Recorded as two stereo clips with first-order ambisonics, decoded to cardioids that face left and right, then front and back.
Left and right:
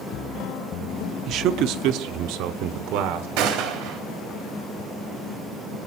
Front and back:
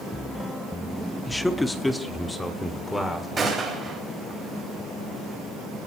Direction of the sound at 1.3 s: 85° right.